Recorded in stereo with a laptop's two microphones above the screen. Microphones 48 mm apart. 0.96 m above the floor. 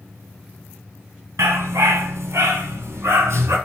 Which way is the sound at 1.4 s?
70° right (ahead or behind).